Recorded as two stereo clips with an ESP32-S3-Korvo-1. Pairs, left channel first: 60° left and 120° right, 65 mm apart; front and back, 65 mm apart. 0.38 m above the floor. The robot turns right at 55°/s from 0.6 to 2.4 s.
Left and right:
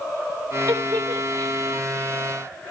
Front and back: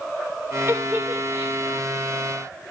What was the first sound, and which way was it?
A giggle, 130° right.